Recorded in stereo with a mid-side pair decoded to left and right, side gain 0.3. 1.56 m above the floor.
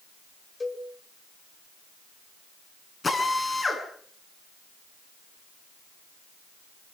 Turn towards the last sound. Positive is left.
turn(degrees=40)